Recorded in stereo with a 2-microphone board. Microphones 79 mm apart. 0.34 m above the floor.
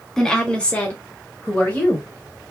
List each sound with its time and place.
0.2 s a woman speaking: 10° left (ahead or behind), 1.3 m; by 2.1 s 30° left (ahead or behind), 1.9 m